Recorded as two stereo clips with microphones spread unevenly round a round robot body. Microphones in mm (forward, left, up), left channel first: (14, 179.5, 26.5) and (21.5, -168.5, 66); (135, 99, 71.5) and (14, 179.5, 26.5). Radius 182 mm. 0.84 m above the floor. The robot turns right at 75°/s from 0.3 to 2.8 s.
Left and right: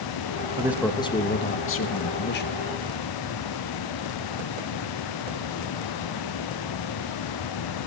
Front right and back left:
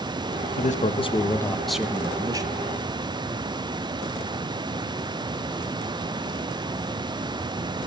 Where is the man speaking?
10° right, 1.2 m; by 2.6 s 140° left, 1.2 m.